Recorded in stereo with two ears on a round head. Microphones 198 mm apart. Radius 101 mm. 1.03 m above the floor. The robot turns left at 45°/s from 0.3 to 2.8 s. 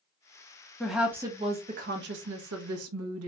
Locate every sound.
0.8 s a woman speaking: 5° left, 0.9 m; by 3.3 s 85° right, 0.9 m